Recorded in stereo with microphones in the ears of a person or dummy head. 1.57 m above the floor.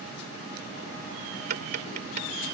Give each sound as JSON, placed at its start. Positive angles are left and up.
{"t": 1.5, "sound": "tapping", "side_deg": -55}